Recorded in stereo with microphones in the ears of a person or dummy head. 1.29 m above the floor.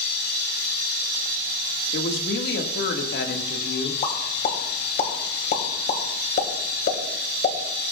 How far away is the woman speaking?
About 2.0 m.